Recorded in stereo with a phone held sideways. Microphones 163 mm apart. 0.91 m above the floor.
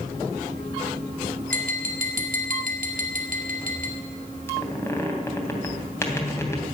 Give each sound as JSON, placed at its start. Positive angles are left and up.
{"t": 1.5, "sound": "tapping", "side_deg": -60, "distance_m": 2.5}
{"t": 4.5, "sound": "a squeak", "side_deg": 15, "distance_m": 3.0}